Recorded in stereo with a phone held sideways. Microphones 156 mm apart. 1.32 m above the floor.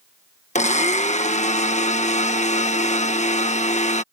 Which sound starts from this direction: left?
A blender, at 0.6 s.